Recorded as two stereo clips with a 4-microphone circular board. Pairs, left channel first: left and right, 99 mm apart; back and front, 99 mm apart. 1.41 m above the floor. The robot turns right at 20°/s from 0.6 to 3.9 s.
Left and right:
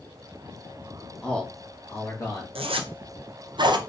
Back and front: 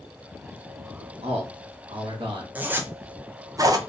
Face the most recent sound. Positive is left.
turn(degrees=-50)